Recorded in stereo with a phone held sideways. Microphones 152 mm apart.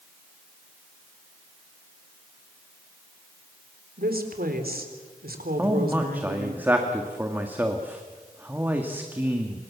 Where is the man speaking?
10° right (ahead or behind), 1.9 m.